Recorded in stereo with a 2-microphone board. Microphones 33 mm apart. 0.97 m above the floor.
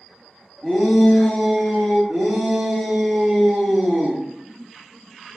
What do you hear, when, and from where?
0.6 s a shout: centre (ahead or behind), 1.7 m; by 2.0 s 30° left (ahead or behind), 1.2 m
2.1 s a shout: 35° right (ahead or behind), 0.7 m